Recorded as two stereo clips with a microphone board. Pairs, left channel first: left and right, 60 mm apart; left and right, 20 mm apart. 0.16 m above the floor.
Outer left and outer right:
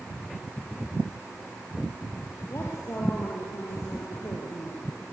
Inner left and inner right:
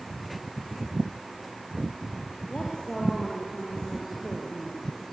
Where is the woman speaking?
45° left (ahead or behind), 4 m.